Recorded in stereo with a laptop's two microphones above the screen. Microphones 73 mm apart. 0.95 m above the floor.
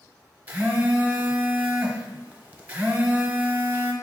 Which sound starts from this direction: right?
A phone buzzing, at 0.5 s.